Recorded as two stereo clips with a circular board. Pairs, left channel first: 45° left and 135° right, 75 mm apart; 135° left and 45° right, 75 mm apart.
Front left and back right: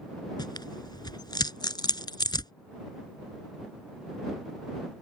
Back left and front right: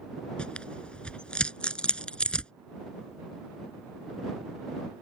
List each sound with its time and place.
0.4 s tearing paper: 60° left